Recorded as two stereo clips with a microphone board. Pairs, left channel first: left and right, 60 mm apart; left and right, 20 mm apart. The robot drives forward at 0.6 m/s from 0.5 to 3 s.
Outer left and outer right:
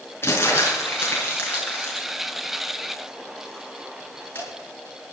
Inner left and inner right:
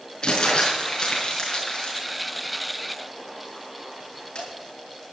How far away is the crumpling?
About 6.5 m.